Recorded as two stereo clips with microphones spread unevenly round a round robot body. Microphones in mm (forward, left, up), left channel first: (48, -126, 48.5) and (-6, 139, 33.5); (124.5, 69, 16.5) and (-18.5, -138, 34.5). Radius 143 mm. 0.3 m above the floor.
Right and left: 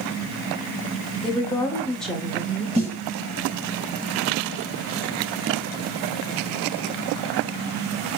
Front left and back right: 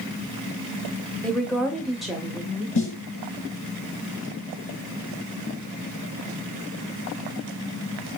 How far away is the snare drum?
About 2.5 m.